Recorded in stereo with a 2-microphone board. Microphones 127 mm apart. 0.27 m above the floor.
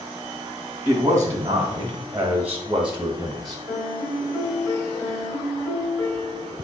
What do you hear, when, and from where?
0.8 s a man speaking: 25° right (ahead or behind), 1.5 m; by 3.6 s centre (ahead or behind), 1.1 m
3.7 s a piano: 25° left (ahead or behind), 1.2 m